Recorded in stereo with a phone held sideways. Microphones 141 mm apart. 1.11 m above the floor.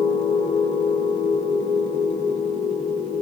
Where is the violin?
No violin in this recording.